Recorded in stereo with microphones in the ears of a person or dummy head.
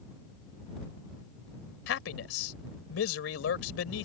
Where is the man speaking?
85° left.